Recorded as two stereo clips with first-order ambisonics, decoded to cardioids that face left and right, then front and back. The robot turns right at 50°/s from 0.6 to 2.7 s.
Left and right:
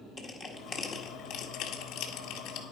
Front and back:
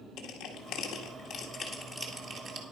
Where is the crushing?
25° left, 1.5 m; by 2.6 s 130° left, 1.5 m.